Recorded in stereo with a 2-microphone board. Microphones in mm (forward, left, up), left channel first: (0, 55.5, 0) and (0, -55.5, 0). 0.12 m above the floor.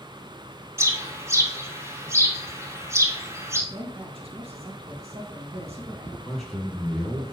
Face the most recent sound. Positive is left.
turn(degrees=5)  # may be behind; listen again after turning